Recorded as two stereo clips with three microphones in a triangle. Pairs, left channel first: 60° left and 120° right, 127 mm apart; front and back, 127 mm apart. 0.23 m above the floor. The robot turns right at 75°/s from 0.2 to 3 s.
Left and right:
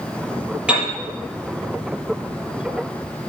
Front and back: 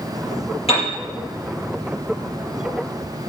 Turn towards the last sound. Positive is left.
turn(degrees=135)